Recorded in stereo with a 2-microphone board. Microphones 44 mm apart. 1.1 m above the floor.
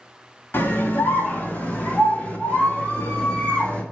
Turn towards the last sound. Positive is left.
turn(degrees=25)  # may be behind; listen again after turning